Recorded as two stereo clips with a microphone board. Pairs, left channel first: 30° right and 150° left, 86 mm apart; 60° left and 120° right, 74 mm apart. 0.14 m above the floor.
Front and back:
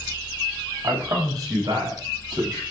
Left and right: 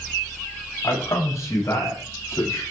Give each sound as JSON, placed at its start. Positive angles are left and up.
{"t": 0.8, "sound": "a man speaking", "azimuth_deg": 105, "distance_m": 9.0}